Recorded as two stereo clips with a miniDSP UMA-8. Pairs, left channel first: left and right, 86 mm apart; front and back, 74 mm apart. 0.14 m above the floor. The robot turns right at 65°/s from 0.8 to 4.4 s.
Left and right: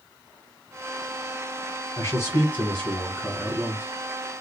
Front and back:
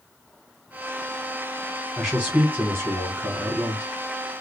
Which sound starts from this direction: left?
A man speaking, at 2.0 s.